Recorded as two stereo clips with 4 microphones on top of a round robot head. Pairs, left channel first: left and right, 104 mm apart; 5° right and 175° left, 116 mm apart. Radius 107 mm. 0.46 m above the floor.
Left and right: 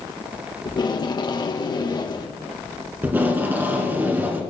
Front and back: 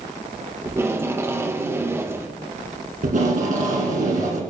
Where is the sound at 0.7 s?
115° left, 1.2 m.